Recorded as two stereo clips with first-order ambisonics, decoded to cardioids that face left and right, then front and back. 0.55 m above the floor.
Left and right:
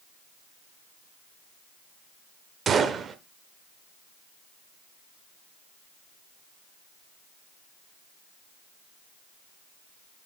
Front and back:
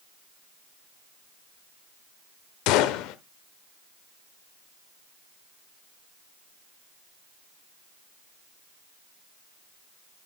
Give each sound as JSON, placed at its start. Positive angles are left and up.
{"t": 2.7, "sound": "a gunshot", "azimuth_deg": -25, "distance_m": 0.7}